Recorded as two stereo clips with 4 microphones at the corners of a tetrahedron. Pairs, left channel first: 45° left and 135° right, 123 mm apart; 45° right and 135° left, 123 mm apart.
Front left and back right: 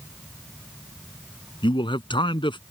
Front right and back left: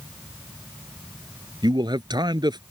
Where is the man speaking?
85° left.